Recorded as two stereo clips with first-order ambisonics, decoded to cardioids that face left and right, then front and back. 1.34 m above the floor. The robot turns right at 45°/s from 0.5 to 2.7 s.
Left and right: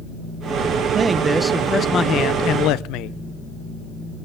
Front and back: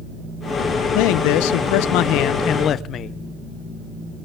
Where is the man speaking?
25° right, 0.6 m; by 3.2 s 55° left, 0.6 m.